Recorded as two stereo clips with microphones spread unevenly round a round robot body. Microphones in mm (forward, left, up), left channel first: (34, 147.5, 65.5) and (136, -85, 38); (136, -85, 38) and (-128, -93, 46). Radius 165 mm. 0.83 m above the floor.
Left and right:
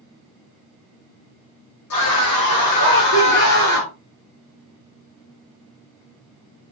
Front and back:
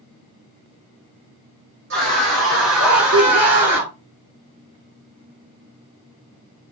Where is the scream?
130° left, 4.5 m; by 3.9 s 150° left, 4 m.